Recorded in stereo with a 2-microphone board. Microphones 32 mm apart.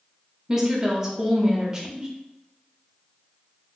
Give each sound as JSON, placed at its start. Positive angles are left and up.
{"t": 0.5, "sound": "a woman speaking", "side_deg": -15, "distance_m": 0.8}